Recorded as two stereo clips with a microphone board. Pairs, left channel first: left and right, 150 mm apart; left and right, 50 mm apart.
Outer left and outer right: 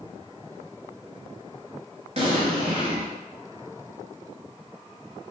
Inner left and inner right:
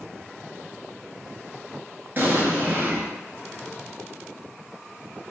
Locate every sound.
2.2 s an explosion: 45° right (ahead or behind), 0.8 m